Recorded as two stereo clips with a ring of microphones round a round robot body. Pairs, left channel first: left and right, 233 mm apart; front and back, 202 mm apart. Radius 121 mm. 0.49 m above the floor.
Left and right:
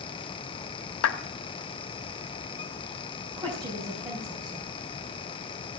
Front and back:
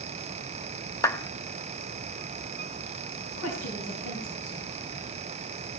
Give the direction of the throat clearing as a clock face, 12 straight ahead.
I don't hear throat clearing.